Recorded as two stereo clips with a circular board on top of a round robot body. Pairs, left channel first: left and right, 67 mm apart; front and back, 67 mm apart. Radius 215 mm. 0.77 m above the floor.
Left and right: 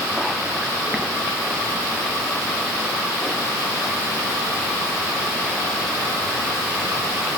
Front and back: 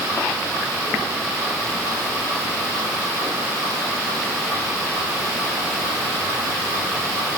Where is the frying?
No frying in this recording.